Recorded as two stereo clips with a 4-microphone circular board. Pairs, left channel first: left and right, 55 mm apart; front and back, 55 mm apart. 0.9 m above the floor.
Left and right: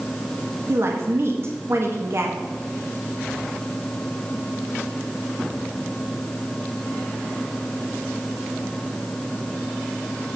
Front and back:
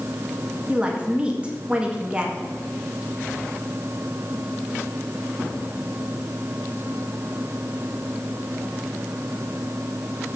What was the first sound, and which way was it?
A woman speaking, 115° right.